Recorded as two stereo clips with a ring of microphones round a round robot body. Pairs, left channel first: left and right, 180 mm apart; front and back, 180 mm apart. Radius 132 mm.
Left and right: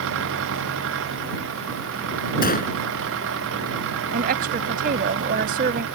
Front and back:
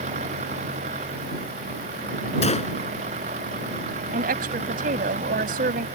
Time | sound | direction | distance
0.0 | an engine running | 115° right | ?
2.4 | a gunshot | 55° left | ?
4.1 | a woman speaking | 135° right | ?